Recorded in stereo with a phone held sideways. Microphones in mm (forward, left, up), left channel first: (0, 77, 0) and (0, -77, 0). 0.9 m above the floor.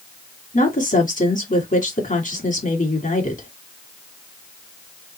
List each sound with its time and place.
0.5 s a woman speaking: 55° left (ahead or behind), 2.0 m